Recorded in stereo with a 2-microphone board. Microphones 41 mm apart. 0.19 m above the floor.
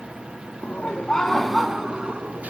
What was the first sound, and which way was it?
Laughter, 40° left (ahead or behind).